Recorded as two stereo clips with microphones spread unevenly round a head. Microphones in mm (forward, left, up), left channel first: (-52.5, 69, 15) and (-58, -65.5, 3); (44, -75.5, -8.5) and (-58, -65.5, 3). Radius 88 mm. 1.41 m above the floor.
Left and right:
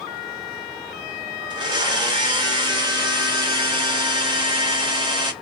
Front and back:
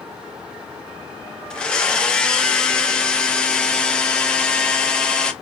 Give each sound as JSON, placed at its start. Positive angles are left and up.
{"t": 1.5, "sound": "a blender", "azimuth_deg": -90, "distance_m": 0.7}